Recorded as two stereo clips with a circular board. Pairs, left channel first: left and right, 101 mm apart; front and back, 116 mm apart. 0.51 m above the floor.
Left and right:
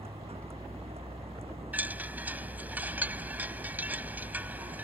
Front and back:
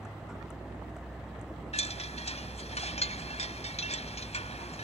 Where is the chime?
15° right.